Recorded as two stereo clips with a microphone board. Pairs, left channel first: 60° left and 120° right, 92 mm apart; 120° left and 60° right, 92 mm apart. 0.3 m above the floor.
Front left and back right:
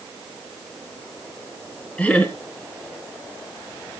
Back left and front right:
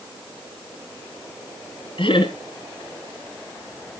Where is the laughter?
135° left, 3.5 m.